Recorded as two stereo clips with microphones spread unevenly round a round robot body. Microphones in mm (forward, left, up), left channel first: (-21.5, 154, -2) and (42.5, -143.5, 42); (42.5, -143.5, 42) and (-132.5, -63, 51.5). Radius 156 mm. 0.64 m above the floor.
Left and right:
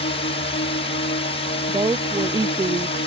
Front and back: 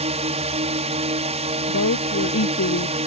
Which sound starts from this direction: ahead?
A woman speaking, at 1.7 s.